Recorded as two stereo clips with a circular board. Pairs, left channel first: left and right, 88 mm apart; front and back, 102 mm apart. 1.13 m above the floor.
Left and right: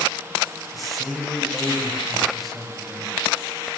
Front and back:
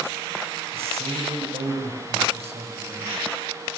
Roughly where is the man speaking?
Behind.